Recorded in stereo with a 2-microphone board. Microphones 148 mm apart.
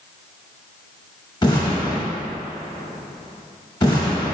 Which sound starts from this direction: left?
An explosion, at 1.4 s.